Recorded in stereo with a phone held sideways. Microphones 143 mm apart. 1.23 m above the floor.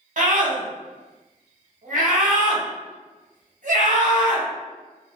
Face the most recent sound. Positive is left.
turn(degrees=-65)  # may be behind; listen again after turning